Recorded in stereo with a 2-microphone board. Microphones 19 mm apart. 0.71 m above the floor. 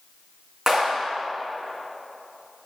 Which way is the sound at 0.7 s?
25° right (ahead or behind).